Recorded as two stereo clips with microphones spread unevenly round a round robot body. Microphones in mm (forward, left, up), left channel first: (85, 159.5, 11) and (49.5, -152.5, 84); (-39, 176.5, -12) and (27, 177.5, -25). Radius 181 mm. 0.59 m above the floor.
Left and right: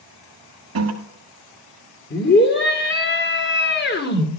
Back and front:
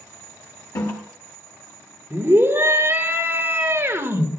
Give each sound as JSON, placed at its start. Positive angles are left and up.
{"t": 0.8, "sound": "a toilet flushing", "azimuth_deg": -145, "distance_m": 1.8}
{"t": 2.1, "sound": "a scream", "azimuth_deg": 45, "distance_m": 2.0}